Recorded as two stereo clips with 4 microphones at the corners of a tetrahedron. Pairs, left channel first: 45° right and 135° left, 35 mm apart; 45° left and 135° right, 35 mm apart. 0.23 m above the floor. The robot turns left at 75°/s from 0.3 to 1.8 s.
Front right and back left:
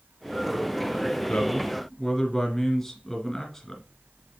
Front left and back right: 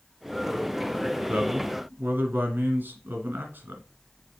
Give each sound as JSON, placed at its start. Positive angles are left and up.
{"t": 1.3, "sound": "a man speaking", "azimuth_deg": -90, "distance_m": 2.5}